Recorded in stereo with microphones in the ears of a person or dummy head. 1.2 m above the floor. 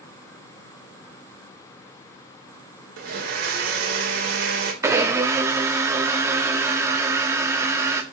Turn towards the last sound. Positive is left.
turn(degrees=-20)  # may be behind; listen again after turning